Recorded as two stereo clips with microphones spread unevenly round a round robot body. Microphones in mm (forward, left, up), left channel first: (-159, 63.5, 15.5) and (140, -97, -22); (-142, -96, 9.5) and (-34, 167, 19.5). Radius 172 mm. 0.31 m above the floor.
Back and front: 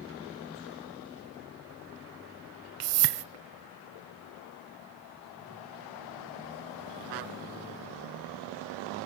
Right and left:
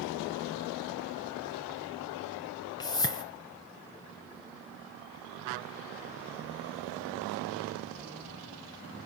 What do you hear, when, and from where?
2.8 s a whoosh: 40° right, 0.9 m